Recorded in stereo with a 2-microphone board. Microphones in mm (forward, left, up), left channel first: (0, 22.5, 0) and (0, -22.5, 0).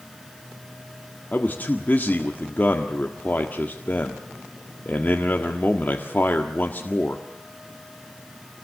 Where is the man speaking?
40° left (ahead or behind), 1.6 m.